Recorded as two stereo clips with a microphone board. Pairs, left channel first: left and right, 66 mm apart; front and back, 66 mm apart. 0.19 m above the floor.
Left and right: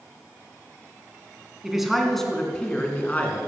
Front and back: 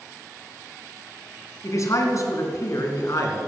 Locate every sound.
1.6 s a man speaking: 10° right, 2.5 m; by 3.4 s 30° left, 3 m